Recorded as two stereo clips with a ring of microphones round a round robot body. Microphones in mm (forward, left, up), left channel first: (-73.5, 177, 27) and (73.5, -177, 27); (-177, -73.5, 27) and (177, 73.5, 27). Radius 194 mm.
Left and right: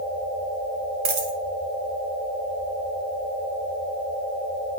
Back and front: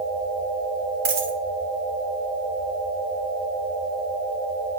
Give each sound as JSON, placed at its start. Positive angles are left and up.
{"t": 1.1, "sound": "a dropped coin", "azimuth_deg": -40, "distance_m": 1.3}